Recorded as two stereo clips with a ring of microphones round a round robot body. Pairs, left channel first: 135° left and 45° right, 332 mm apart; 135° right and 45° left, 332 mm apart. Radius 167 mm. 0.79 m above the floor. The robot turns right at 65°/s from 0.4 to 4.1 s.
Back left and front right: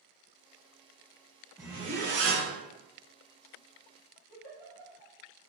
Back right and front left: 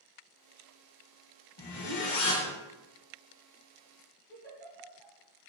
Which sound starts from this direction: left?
A giggle, at 4.3 s.